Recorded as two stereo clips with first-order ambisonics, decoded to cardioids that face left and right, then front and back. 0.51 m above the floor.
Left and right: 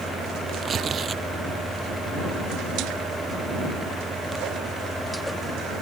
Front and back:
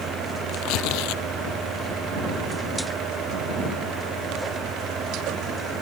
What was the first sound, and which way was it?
Tearing paper, 25° right.